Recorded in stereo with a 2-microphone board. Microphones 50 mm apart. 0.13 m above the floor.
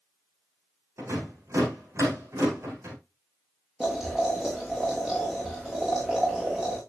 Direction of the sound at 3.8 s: 10° right (ahead or behind).